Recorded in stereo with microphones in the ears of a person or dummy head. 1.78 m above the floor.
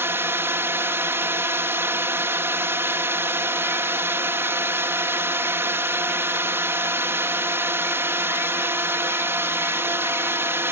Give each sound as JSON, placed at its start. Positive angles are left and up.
{"t": 0.0, "sound": "a drone", "side_deg": -10}